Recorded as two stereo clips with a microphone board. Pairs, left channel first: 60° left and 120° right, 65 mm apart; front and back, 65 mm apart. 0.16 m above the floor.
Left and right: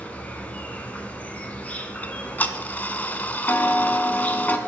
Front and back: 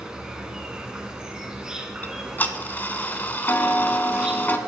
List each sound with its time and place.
0.0 s an insect: 110° left, 1.1 m
2.0 s ticking: 30° left, 0.6 m